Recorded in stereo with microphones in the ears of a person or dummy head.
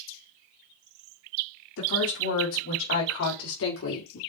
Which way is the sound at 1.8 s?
80° left.